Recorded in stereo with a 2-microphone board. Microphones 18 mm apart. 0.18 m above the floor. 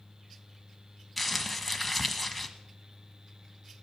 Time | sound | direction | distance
1.2 | crumpling | centre (ahead or behind) | 1.2 m